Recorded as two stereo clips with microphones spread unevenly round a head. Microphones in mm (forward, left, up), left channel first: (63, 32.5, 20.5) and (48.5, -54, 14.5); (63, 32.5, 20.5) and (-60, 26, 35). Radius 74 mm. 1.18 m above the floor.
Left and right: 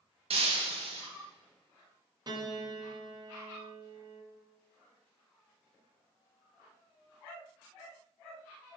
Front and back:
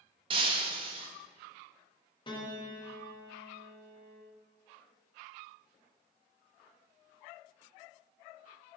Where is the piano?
60° right, 1.0 m.